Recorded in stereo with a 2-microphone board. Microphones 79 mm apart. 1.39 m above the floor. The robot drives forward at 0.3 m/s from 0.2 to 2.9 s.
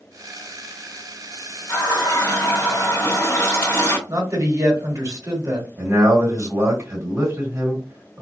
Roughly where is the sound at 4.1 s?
Right.